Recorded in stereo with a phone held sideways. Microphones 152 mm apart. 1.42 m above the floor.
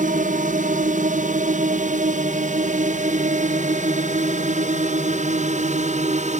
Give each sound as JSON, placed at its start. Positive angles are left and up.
{"t": 0.0, "sound": "a drone", "side_deg": -60}